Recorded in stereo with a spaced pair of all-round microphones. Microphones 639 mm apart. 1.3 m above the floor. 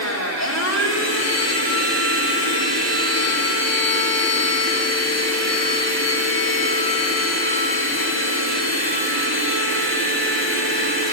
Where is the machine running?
25° left (ahead or behind), 3.5 m.